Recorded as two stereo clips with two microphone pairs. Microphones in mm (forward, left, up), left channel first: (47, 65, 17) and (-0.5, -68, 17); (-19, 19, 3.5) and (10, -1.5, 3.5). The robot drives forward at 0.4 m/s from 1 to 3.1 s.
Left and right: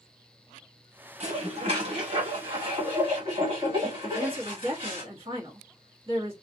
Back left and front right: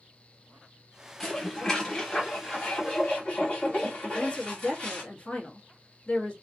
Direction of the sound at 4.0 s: 155° right.